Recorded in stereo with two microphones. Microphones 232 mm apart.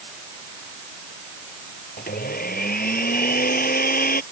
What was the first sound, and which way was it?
A blender, 35° left (ahead or behind).